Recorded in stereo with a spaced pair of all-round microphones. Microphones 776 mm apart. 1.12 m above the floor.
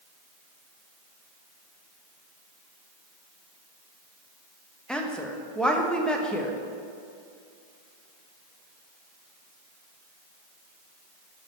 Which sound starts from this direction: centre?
A woman speaking, at 4.9 s.